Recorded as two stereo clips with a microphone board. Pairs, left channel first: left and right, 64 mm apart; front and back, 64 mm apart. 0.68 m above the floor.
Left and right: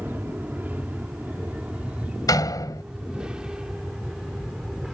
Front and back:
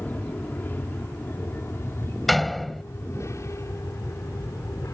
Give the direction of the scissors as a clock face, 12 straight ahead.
No scissors in this recording.